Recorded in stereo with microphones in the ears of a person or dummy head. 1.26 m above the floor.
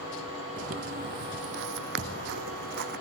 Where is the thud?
30° right (ahead or behind).